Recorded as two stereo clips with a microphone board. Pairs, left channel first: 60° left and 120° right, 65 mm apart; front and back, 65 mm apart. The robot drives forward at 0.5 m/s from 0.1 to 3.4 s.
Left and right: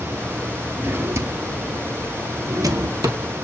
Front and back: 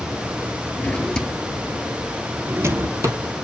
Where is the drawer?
60° right, 0.7 m; by 3.2 s 145° right, 1.1 m.